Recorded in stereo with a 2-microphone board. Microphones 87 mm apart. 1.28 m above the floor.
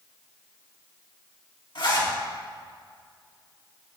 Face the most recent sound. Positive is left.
turn(degrees=65)  # may be behind; listen again after turning